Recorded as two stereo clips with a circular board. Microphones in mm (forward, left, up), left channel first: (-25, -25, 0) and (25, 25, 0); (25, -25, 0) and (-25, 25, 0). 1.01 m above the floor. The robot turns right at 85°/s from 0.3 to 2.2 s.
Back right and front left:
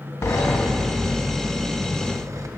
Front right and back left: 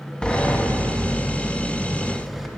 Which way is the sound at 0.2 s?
120° right.